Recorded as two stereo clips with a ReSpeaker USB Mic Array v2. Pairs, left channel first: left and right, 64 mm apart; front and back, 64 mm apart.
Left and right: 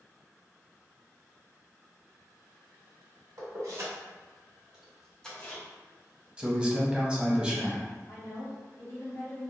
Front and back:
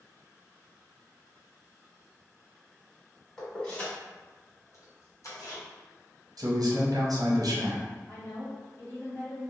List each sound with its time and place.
3.4 s keys jangling: 80° right, 1.2 m; by 5.6 s 30° left, 1.0 m
6.4 s a man speaking: 165° right, 0.7 m
8.1 s a woman speaking: 55° left, 1.4 m